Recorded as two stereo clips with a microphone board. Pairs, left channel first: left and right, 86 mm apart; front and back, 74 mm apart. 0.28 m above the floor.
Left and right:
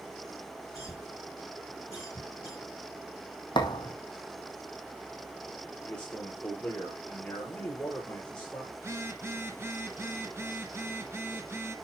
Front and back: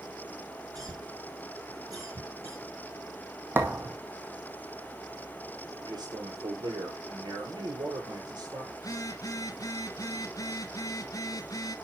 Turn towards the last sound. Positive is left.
turn(degrees=-30)